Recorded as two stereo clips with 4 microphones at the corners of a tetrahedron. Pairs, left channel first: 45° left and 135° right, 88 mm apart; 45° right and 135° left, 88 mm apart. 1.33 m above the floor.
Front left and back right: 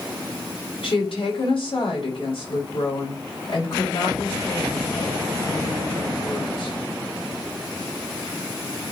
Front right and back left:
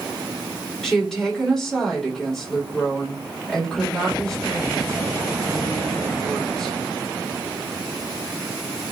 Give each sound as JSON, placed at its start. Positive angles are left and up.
{"t": 0.8, "sound": "a woman speaking", "azimuth_deg": 40, "distance_m": 3.5}